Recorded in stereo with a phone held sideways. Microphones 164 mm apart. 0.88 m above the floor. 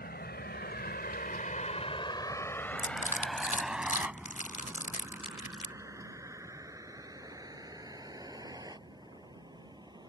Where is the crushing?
50° left (ahead or behind).